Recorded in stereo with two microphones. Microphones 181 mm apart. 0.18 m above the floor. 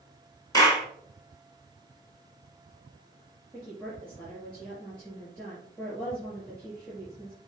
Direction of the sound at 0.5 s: 20° left (ahead or behind).